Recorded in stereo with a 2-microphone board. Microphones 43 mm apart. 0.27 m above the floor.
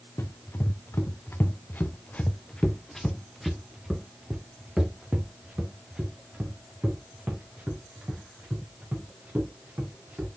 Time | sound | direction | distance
0.2 | running footsteps | 75° left (ahead or behind) | 1.5 m